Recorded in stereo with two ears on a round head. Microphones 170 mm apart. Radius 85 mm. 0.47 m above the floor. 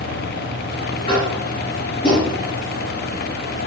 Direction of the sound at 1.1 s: 25° left (ahead or behind).